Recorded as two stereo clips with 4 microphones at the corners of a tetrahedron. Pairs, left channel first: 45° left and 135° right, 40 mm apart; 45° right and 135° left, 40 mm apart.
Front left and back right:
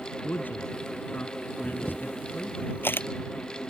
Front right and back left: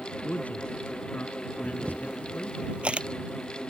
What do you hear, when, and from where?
0.2 s a man speaking: 5° left
1.6 s a camera shutter: 70° left